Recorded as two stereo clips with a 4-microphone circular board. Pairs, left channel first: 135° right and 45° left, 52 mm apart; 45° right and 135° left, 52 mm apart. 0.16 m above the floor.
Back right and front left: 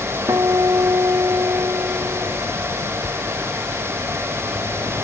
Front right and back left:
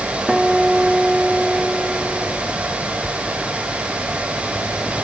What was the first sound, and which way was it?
A guitar, 50° left.